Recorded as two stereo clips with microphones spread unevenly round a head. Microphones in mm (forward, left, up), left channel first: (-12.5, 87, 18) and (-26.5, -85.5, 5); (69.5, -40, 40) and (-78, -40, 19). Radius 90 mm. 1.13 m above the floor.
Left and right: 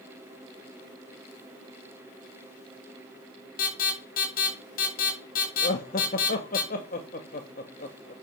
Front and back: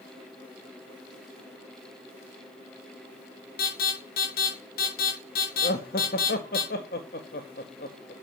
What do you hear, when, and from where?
3.6 s an alarm: 40° left, 6.5 m
5.6 s laughter: 40° left, 1.7 m